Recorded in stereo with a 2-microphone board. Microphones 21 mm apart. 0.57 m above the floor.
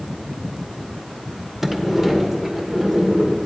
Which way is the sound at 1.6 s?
5° right (ahead or behind).